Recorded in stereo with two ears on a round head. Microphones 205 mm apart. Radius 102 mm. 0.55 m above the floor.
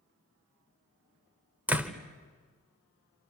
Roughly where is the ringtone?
I don't hear a ringtone.